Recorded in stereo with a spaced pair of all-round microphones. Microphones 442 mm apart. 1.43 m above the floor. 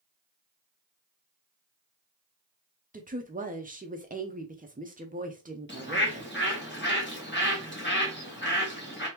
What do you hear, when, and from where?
2.9 s a woman speaking: 20° right (ahead or behind), 0.6 m
5.7 s a bird: 25° left (ahead or behind), 1.3 m